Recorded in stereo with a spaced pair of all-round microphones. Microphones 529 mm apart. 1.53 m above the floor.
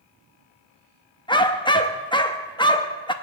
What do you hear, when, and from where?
1.3 s a dog barking: 10° left (ahead or behind), 0.9 m